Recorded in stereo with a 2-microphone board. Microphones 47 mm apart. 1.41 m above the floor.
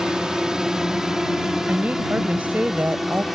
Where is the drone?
15° right (ahead or behind); by 3.3 s 5° right (ahead or behind).